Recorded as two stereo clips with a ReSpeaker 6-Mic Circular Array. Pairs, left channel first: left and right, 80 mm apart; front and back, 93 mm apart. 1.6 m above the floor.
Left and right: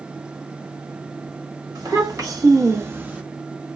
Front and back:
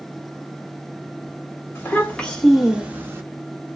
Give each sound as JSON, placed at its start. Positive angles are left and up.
{"t": 1.8, "sound": "a child speaking", "azimuth_deg": -70, "distance_m": 1.5}